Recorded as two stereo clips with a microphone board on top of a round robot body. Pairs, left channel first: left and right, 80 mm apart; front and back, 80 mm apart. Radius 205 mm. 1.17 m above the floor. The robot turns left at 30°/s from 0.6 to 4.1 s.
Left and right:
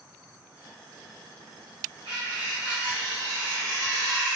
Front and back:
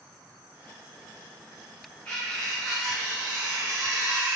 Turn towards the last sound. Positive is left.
turn(degrees=-130)